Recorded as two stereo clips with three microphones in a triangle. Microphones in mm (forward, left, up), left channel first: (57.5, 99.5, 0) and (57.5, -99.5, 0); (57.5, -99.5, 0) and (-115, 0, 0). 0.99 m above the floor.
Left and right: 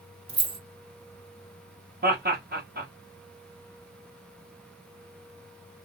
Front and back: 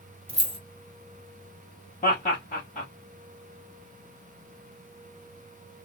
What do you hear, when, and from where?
0.3 s keys jangling: 150° right, 0.5 m
2.0 s laughter: 70° right, 1.4 m